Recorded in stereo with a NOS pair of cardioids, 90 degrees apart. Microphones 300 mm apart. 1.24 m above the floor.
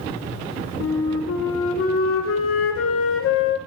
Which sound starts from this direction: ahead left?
A flute, at 0.8 s.